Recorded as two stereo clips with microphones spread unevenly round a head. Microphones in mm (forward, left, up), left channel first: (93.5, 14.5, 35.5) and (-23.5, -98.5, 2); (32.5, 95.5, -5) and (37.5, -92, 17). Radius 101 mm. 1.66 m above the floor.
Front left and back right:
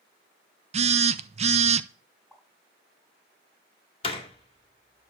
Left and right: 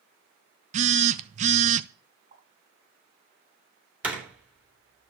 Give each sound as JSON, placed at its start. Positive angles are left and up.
{"t": 0.7, "sound": "a phone buzzing", "azimuth_deg": -90, "distance_m": 0.7}
{"t": 2.3, "sound": "a pop", "azimuth_deg": -50, "distance_m": 7.0}
{"t": 4.0, "sound": "a door slam", "azimuth_deg": -10, "distance_m": 3.0}